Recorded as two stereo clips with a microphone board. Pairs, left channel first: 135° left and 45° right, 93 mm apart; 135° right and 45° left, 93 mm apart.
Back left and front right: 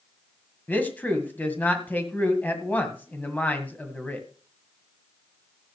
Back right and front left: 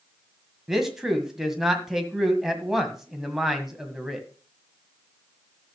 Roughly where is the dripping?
I don't hear dripping.